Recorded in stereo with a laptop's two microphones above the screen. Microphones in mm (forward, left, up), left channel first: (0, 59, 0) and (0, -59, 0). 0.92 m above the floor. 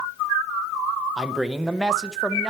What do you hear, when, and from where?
1.2 s a man speaking: 5° right (ahead or behind), 0.6 m